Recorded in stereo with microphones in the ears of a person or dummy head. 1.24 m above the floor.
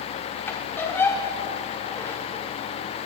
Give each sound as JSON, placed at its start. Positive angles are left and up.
{"t": 0.5, "sound": "a squeak", "side_deg": 10, "distance_m": 1.4}